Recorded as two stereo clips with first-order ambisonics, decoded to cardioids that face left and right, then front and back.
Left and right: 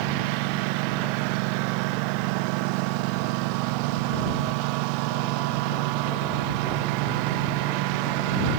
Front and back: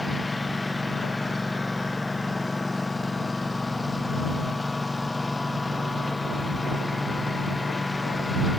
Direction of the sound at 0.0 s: 80° right.